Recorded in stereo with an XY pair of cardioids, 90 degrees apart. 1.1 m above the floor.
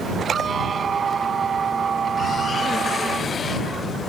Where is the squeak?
45° right.